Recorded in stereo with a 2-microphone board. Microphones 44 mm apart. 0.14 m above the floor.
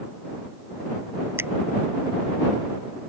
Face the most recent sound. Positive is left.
turn(degrees=-60)  # may be behind; listen again after turning